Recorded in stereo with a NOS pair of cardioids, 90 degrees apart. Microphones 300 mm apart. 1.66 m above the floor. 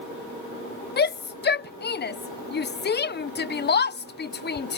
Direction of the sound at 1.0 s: 35° left.